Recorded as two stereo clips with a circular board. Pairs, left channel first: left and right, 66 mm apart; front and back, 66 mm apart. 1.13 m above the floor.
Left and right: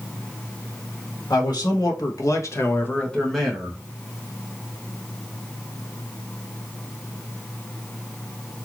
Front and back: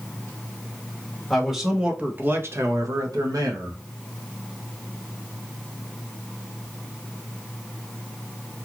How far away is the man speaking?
About 1.1 m.